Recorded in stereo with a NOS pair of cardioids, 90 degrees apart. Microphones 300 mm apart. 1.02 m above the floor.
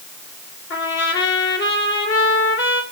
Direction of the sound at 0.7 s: 40° left.